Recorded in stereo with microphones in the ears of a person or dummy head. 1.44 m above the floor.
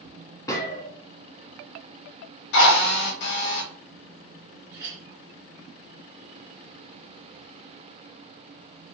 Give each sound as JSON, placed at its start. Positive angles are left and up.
{"t": 0.5, "sound": "a gunshot", "side_deg": 15, "distance_m": 0.8}
{"t": 2.5, "sound": "a drill", "side_deg": 65, "distance_m": 1.2}
{"t": 4.7, "sound": "a clink", "side_deg": -20, "distance_m": 1.4}